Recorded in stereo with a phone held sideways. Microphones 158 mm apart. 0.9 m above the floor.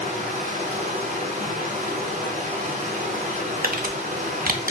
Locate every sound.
0.0 s running water: 50° right (ahead or behind), 1.1 m
3.6 s crumpling: 60° right (ahead or behind), 0.6 m